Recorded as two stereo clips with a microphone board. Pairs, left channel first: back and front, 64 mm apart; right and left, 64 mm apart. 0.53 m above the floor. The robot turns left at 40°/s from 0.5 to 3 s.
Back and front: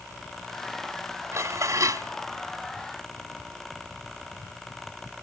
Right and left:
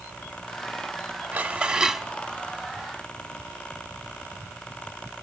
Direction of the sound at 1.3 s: 25° left.